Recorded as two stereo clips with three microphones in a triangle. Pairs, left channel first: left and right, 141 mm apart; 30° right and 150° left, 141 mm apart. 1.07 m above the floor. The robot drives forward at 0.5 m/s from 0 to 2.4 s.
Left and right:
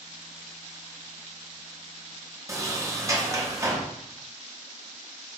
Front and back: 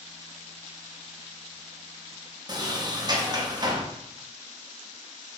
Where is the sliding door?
155° right, 0.6 m.